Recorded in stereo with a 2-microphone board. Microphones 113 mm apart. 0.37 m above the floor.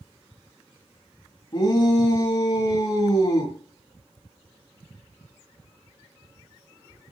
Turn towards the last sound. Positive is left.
turn(degrees=40)  # may be behind; listen again after turning